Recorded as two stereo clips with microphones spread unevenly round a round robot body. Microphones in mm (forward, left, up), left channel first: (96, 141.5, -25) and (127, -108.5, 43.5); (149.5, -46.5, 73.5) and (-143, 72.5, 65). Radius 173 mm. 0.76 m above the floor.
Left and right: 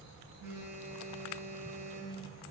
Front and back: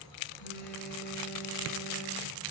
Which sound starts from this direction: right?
A phone buzzing, at 0.4 s.